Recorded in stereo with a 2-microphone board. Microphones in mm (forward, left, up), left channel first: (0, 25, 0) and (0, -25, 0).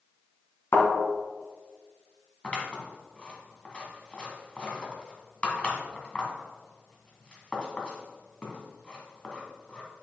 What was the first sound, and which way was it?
A thud, 70° left (ahead or behind).